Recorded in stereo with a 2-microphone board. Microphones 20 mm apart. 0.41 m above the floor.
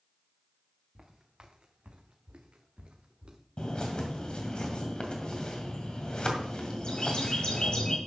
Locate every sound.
0.9 s footsteps: 30° right (ahead or behind), 1.9 m; by 3.4 s 45° right (ahead or behind), 2.5 m
3.6 s a bird: 50° left (ahead or behind), 2 m